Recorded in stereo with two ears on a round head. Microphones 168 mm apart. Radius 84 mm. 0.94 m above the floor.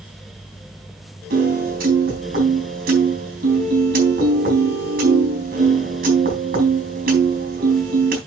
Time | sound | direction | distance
1.3 | a piano | 50° right (ahead or behind) | 3.5 m